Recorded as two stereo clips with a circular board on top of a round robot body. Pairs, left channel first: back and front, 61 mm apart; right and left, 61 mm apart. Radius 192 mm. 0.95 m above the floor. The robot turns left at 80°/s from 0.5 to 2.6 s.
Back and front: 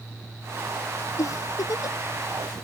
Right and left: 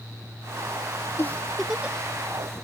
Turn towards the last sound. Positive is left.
turn(degrees=100)